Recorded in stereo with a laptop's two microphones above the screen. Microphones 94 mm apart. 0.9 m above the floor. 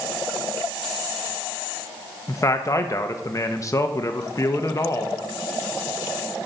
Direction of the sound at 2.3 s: 35° left (ahead or behind).